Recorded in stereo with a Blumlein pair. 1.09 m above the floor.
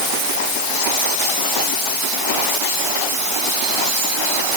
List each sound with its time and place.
Only background noise.